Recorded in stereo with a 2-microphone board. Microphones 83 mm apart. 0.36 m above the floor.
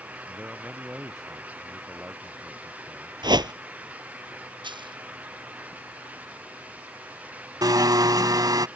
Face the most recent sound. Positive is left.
turn(degrees=-50)  # may be behind; listen again after turning